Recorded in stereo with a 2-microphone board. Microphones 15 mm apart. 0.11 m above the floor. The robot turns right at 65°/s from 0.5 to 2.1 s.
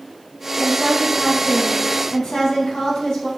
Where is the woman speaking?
15° left, 3 m; by 3.3 s 115° left, 3 m.